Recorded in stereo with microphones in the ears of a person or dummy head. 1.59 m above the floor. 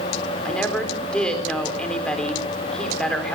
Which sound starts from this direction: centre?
A woman speaking, at 0.5 s.